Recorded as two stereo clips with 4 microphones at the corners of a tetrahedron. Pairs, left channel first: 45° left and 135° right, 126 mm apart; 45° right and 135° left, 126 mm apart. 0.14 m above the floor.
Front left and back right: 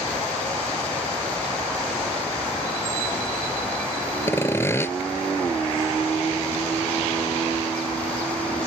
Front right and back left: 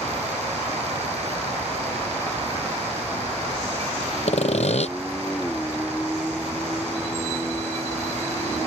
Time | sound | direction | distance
4.3 | sawing | 25° right | ?